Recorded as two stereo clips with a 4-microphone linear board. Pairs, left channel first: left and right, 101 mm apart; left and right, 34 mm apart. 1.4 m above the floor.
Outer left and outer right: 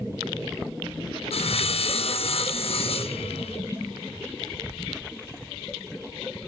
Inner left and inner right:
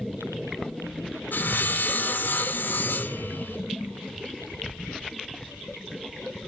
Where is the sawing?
75° left (ahead or behind), 0.5 m.